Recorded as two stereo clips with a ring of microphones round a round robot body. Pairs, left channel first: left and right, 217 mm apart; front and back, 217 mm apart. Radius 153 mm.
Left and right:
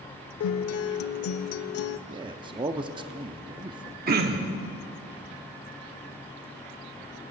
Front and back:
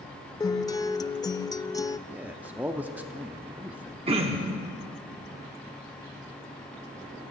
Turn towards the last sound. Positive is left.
turn(degrees=-120)